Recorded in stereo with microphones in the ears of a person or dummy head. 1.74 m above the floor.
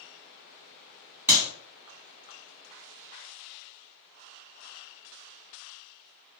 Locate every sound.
1.3 s a clap: 15° right (ahead or behind), 1.7 m